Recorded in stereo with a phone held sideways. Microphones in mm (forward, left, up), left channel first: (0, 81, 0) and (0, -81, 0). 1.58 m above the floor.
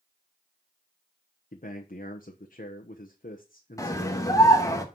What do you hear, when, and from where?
1.5 s a man speaking: 55° left (ahead or behind), 1.1 m
3.8 s a scream: 20° left (ahead or behind), 1.8 m